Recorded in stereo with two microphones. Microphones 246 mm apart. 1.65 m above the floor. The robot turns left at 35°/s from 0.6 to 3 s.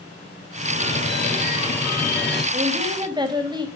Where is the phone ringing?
50° left, 8.5 m; by 2.4 s 10° right, 8.5 m.